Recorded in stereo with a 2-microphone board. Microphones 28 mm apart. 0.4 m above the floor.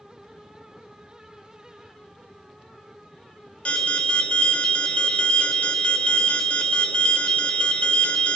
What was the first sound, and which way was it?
An alarm, 45° left (ahead or behind).